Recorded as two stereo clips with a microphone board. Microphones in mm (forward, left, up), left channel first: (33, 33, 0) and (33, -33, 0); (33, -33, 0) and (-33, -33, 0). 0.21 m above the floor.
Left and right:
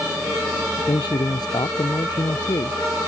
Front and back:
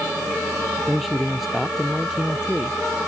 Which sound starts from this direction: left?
A man speaking, at 0.9 s.